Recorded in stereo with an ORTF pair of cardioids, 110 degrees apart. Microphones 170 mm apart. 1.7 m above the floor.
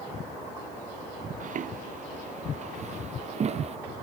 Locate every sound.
1.4 s footsteps: 50° right; by 3.8 s 40° right